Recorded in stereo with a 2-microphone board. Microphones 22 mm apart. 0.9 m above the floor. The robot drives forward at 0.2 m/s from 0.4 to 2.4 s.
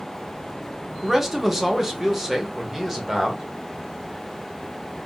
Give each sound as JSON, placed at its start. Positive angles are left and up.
{"t": 1.0, "sound": "a man speaking", "side_deg": -10, "distance_m": 0.7}